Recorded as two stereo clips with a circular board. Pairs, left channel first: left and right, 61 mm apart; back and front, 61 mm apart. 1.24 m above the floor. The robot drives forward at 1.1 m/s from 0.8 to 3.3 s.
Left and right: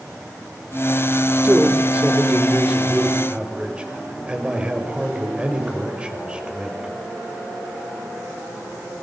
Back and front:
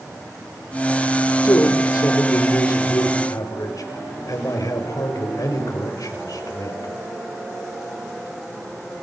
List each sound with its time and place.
1.4 s a man speaking: 150° right, 2.5 m; by 6.9 s 160° right, 4.5 m